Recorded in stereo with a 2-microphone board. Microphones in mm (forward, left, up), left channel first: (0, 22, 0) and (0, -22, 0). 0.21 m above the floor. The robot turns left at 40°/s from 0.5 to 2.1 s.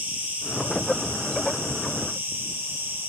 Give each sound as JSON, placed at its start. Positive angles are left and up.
{"t": 0.0, "sound": "an insect", "azimuth_deg": -35, "distance_m": 5.5}